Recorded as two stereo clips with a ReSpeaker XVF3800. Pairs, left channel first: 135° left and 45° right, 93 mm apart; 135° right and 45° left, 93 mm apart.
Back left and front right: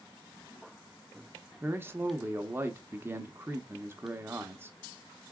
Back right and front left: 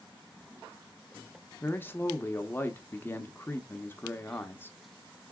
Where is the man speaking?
90° right, 0.8 m.